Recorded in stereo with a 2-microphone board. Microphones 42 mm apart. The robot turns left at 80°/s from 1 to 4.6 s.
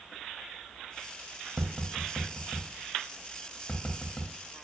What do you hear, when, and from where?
1.6 s tapping: 45° right (ahead or behind), 0.5 m; by 4.3 s 20° left (ahead or behind), 0.5 m